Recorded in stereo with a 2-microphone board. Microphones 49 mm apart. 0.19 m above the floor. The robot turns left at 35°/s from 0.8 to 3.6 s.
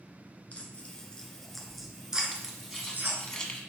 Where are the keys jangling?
15° right (ahead or behind), 1.1 m; by 3.6 s 15° left (ahead or behind), 1.1 m.